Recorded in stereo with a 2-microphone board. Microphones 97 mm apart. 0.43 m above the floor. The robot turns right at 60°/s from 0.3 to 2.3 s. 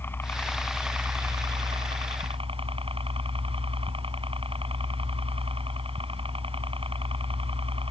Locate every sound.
0.0 s a helicopter: 155° left; by 7.9 s 85° right